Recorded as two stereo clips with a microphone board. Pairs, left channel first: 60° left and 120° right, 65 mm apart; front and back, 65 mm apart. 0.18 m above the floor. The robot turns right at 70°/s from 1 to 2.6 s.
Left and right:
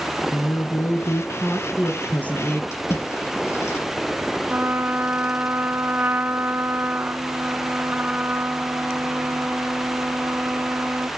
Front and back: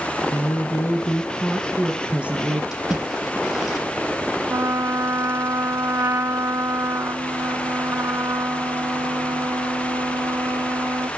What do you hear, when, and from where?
0.3 s a woman speaking: 30° left, 1.5 m; by 2.6 s 145° left, 1.5 m
2.7 s a splash: 95° left, 4.5 m
4.5 s a trumpet: 170° right, 0.8 m